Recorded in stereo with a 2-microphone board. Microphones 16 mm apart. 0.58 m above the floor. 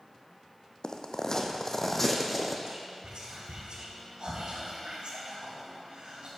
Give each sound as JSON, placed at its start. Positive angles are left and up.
{"t": 0.8, "sound": "footsteps", "side_deg": 55, "distance_m": 1.1}
{"t": 2.7, "sound": "whispering", "side_deg": -65, "distance_m": 4.0}